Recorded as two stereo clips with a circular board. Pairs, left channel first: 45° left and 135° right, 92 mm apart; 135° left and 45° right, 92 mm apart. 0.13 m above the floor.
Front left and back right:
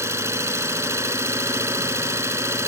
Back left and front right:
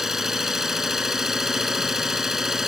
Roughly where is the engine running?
Behind right.